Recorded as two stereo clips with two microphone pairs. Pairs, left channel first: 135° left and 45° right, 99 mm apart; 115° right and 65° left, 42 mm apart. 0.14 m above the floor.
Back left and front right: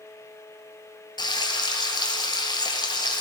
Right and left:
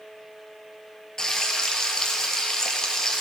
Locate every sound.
1.2 s frying: 170° left, 1.4 m